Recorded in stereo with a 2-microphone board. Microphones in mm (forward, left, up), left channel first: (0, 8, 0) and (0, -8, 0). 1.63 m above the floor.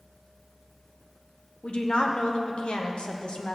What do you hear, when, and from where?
1.6 s a woman speaking: 75° left (ahead or behind), 1.3 m